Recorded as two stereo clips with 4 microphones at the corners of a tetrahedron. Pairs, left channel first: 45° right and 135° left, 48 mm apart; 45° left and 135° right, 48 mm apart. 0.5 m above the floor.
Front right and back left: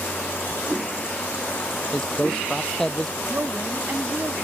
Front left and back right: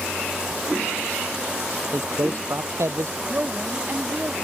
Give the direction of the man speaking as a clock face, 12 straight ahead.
4 o'clock.